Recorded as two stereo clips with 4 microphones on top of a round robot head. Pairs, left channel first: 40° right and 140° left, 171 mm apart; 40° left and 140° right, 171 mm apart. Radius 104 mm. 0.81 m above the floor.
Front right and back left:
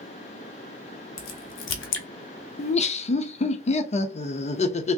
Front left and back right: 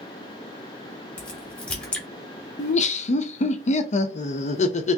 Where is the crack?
40° right, 0.6 m.